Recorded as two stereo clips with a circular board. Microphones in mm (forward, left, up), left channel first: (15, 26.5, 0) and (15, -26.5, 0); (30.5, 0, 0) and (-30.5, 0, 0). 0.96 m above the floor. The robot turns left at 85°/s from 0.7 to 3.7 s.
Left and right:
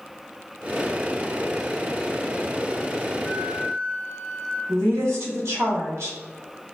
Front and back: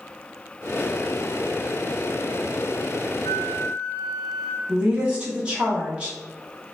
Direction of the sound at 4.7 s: 110° right.